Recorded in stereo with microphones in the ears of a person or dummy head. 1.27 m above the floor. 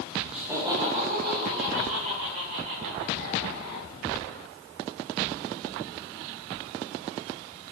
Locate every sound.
0.3 s laughter: 5° right (ahead or behind), 1.2 m; by 3.9 s 80° right, 4 m